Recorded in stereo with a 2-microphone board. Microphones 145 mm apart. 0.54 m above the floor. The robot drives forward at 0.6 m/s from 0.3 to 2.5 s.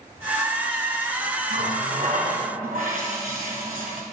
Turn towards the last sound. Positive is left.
turn(degrees=-65)  # may be behind; listen again after turning